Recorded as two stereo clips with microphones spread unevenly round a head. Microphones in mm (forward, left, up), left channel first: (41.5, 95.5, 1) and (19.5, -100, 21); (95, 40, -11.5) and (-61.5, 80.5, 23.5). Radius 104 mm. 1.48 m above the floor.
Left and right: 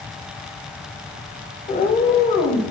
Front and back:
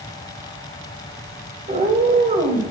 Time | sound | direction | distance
1.7 | a cat meowing | 140° left | 2.5 m